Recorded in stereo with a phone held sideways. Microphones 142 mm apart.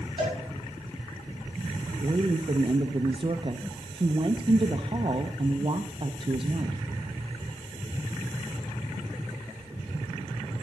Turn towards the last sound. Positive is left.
turn(degrees=-40)  # may be behind; listen again after turning